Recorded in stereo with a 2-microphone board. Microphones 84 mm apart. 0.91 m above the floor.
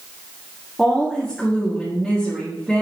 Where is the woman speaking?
Centre (ahead or behind), 1.7 m.